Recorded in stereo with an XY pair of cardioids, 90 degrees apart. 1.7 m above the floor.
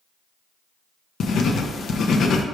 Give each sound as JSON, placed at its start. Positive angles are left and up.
{"t": 1.2, "sound": "writing", "azimuth_deg": 70, "distance_m": 0.5}